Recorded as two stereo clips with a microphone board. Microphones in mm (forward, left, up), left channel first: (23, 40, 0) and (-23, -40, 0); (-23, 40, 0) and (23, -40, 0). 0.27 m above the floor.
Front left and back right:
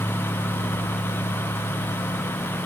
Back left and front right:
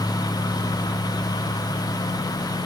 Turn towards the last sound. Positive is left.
No sound to turn to.